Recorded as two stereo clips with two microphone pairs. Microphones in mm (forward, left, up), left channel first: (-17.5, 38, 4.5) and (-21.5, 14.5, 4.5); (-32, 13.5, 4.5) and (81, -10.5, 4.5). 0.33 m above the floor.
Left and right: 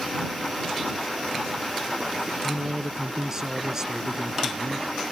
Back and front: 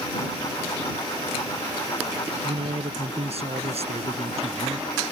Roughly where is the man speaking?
Ahead right.